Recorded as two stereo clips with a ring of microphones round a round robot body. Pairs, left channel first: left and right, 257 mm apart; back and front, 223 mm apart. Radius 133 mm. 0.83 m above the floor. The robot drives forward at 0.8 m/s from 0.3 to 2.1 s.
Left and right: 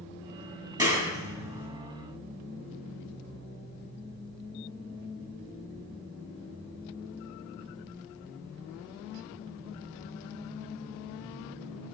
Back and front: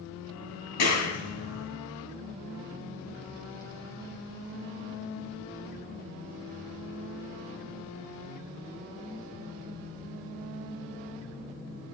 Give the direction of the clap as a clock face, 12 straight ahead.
6 o'clock.